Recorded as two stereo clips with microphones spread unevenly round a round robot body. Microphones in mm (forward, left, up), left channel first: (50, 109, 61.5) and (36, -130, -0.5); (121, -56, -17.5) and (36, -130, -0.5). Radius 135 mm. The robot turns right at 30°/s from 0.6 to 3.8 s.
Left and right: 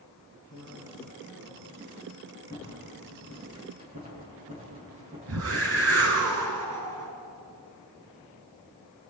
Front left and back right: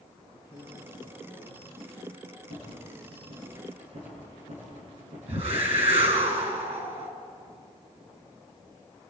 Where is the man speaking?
110° left, 7.5 m; by 2.2 s 155° left, 7.5 m.